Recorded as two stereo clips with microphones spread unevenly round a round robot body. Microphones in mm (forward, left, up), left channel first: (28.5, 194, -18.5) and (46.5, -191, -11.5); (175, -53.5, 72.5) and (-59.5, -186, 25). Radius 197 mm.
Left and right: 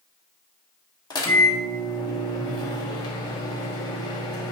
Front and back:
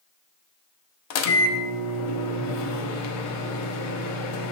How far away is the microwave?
About 0.6 m.